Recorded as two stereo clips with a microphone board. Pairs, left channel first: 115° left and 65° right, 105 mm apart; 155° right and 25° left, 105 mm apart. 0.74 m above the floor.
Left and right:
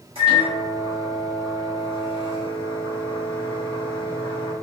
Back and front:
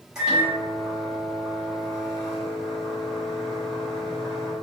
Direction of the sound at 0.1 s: 60° right.